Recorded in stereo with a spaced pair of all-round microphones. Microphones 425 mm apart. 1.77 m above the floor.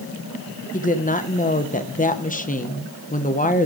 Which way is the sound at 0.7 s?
20° left (ahead or behind).